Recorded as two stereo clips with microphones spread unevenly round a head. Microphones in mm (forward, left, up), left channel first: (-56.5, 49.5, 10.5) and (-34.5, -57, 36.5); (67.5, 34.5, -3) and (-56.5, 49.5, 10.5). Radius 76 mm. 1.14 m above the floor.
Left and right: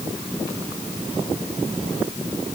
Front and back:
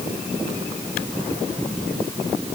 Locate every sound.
Only background noise.